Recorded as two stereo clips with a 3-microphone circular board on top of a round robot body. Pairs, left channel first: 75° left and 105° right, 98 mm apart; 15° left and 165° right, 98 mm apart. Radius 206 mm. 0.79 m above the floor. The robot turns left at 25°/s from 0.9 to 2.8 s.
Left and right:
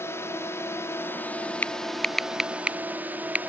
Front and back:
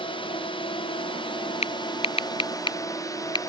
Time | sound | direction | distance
0.0 | a drone | 15° left | ?
1.6 | typing on a keyboard | straight ahead | ?